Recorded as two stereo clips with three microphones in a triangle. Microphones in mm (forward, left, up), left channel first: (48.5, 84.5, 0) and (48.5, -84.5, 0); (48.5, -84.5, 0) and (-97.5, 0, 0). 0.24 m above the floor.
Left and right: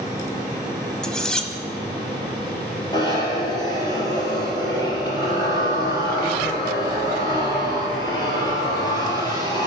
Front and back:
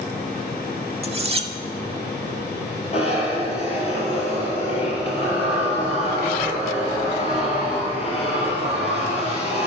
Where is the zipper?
25° left, 3 m.